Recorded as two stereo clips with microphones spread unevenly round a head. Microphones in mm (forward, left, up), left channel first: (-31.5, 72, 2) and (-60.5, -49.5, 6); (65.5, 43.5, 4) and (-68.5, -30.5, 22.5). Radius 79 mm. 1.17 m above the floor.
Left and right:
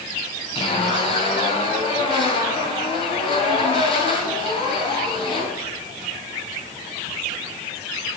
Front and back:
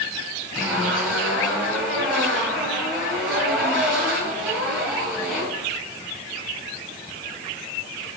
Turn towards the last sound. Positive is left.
turn(degrees=125)